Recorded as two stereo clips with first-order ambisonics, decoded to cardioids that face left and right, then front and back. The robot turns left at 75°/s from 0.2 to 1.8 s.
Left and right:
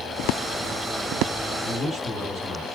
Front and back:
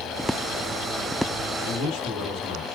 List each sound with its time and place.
1.6 s a man speaking: 5° left, 4 m; by 2.6 s 5° right, 4 m